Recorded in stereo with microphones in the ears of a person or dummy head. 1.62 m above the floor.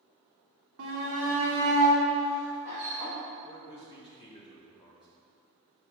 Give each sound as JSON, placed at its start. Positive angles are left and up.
{"t": 0.8, "sound": "a shout", "side_deg": -85, "distance_m": 1.4}
{"t": 3.4, "sound": "a man speaking", "side_deg": 25, "distance_m": 2.0}